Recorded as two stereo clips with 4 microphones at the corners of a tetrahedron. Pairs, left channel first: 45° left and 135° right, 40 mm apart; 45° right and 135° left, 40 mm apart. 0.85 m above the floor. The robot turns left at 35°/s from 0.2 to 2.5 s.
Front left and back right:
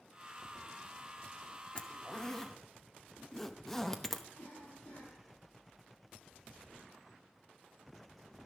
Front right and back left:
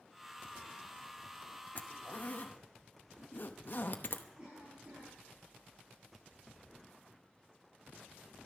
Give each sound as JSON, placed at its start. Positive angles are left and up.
{"t": 1.8, "sound": "a zipper", "azimuth_deg": -5, "distance_m": 0.8}
{"t": 4.4, "sound": "a cough", "azimuth_deg": 80, "distance_m": 6.5}